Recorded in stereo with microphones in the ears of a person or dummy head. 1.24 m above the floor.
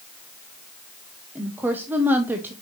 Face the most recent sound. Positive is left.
turn(degrees=-10)  # may be behind; listen again after turning